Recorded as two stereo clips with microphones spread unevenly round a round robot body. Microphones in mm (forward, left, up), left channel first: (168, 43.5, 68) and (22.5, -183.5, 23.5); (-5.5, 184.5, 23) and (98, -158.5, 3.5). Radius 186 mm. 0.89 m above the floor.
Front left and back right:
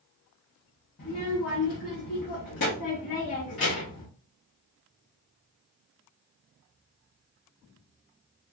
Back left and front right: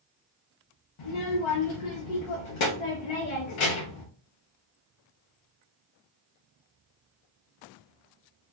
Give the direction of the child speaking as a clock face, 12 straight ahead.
8 o'clock.